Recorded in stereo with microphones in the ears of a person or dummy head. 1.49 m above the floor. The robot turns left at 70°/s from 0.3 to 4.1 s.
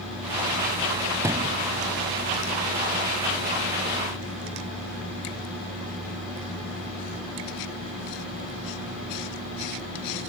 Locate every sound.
1.2 s a thud: 15° right (ahead or behind); by 1.6 s 40° right (ahead or behind)